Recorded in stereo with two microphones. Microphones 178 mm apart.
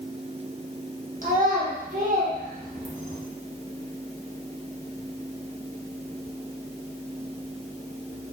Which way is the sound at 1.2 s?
50° right (ahead or behind).